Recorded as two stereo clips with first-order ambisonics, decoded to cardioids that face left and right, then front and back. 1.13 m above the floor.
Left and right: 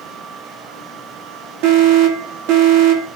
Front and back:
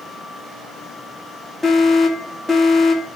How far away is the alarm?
About 3 m.